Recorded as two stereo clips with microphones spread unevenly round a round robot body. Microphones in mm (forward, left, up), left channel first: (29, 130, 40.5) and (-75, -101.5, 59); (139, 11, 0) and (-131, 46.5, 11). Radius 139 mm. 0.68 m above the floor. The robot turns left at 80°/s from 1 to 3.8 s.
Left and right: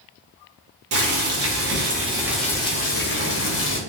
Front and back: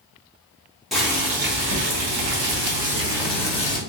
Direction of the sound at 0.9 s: 95° right.